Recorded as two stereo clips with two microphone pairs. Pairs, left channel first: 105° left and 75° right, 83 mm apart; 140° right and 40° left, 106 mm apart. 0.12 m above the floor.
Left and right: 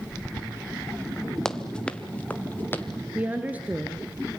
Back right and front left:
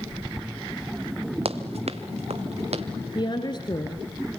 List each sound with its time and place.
1.4 s running footsteps: 25° left, 1.8 m; by 2.9 s 40° left, 2.5 m
3.1 s a woman speaking: 135° right, 1.6 m